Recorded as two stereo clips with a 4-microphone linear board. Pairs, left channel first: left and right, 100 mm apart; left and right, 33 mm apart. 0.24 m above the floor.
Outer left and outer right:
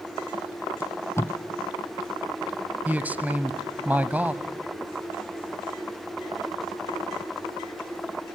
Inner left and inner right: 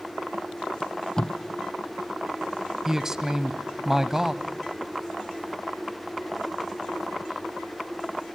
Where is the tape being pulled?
25° left (ahead or behind), 1.1 m.